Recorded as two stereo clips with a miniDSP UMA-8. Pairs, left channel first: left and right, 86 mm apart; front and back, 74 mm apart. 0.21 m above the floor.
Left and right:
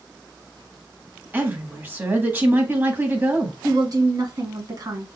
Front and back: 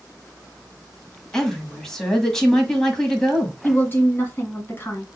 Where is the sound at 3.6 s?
60° right, 2 m.